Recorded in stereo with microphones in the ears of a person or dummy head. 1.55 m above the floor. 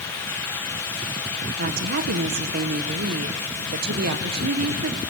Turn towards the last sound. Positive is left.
turn(degrees=-55)  # may be behind; listen again after turning